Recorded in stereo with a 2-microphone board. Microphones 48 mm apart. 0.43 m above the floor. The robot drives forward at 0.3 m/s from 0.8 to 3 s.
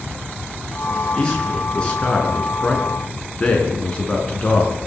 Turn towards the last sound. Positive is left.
turn(degrees=20)  # may be behind; listen again after turning